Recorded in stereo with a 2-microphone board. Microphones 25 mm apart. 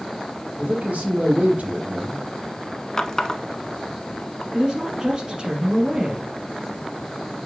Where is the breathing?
I don't hear breathing.